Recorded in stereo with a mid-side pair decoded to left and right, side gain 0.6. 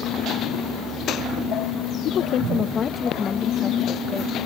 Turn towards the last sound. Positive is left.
turn(degrees=20)